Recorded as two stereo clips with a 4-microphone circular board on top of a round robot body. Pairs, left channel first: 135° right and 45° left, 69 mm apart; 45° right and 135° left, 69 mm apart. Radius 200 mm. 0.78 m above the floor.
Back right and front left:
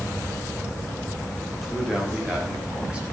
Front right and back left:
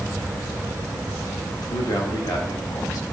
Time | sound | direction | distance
1.6 | a man speaking | 45° right | 2 m